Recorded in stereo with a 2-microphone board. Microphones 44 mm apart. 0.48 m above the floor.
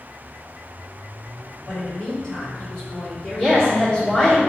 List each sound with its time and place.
1.7 s a woman speaking: 20° left (ahead or behind), 1.7 m; by 4.3 s 5° left (ahead or behind), 1.3 m
3.4 s a woman speaking: 15° left (ahead or behind), 1.1 m